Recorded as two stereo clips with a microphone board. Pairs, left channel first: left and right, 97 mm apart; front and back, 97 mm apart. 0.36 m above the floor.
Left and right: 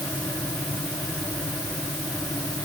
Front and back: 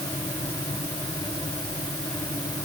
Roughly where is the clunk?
I don't hear a clunk.